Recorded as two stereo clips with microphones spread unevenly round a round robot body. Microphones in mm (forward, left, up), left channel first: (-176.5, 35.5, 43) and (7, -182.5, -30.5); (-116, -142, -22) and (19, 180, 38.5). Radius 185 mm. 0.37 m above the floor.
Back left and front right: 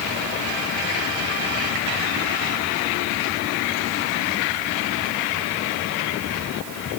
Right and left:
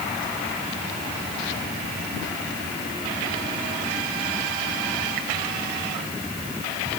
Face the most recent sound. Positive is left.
No sound to turn to.